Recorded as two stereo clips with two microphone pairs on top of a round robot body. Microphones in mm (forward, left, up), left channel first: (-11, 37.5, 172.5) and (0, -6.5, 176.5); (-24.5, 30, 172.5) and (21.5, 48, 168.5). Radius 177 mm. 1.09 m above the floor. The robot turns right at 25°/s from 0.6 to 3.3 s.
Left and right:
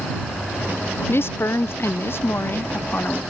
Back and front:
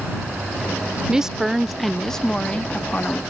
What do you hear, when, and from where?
1.1 s a woman speaking: 90° left; by 3.2 s 145° left